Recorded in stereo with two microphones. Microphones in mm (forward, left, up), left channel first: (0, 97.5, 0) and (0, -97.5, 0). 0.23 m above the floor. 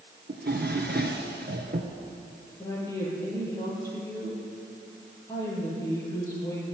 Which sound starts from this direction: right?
A drawer, at 0.3 s.